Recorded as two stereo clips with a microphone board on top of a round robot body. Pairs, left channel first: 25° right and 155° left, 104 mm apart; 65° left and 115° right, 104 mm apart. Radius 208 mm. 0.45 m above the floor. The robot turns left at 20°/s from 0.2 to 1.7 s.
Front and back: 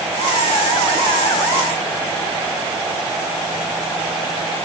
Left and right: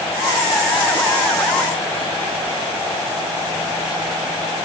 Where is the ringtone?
No ringtone in this recording.